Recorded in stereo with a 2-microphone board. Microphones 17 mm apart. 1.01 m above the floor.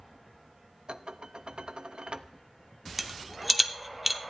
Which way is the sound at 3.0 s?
10° right (ahead or behind).